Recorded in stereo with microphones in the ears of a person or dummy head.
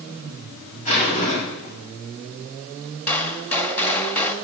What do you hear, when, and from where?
0.8 s a zipper: 40° left (ahead or behind), 7 m
3.1 s a gunshot: 10° left (ahead or behind), 1.3 m